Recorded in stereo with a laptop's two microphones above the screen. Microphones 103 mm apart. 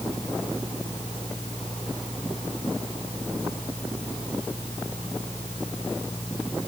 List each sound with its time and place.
0.0 s a fan: 85° left